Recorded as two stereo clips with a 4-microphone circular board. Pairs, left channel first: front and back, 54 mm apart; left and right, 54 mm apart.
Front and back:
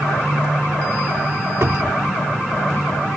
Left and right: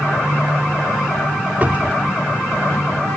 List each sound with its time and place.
1.6 s a cupboard door: 145° right